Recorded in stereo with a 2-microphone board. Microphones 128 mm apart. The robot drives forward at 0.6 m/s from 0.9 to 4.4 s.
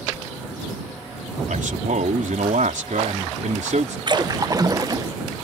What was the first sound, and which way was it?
A man speaking, 80° right.